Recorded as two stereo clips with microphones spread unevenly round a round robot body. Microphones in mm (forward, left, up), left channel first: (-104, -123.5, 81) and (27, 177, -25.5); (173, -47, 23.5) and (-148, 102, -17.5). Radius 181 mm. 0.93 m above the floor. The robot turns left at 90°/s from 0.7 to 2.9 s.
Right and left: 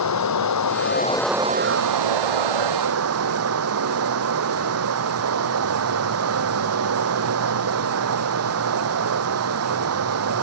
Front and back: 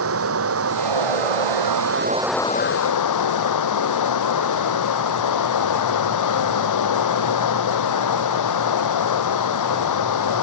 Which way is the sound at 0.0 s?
150° right.